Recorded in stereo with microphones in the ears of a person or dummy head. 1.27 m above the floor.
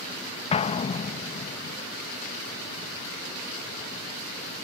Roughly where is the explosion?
Left.